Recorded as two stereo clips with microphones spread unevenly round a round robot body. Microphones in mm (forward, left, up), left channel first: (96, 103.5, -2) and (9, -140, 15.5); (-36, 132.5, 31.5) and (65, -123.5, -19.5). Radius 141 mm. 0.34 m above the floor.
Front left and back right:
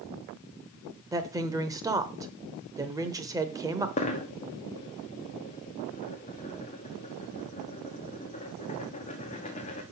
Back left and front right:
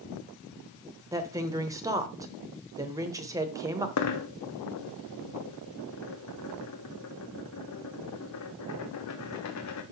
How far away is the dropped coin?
About 1.2 m.